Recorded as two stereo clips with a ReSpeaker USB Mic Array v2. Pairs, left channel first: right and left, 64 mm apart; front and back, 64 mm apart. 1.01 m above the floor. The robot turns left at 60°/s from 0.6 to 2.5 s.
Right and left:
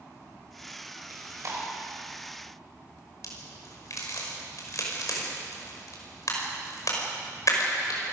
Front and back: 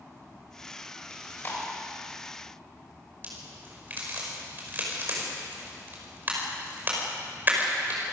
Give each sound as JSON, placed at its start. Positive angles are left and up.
{"t": 1.1, "sound": "chewing", "azimuth_deg": 75, "distance_m": 5.5}
{"t": 3.2, "sound": "a crack", "azimuth_deg": -120, "distance_m": 5.5}